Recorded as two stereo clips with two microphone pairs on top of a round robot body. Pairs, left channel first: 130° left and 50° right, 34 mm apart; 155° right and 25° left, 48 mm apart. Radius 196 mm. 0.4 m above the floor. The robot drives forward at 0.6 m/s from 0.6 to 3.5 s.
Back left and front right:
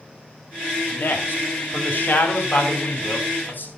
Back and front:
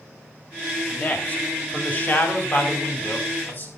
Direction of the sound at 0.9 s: 145° left.